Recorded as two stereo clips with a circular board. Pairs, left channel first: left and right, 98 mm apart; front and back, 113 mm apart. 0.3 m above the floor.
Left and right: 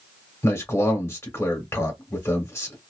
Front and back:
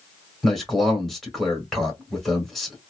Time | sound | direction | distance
0.4 | a man speaking | 90° left | 1.4 m